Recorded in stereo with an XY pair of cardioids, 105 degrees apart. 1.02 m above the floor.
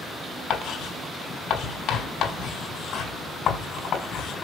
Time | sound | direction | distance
0.5 | writing | 65° left | 4 m